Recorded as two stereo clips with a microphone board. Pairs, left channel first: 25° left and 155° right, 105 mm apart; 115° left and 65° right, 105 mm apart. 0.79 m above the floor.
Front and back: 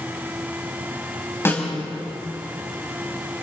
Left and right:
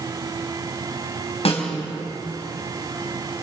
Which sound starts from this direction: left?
A snare drum, at 1.4 s.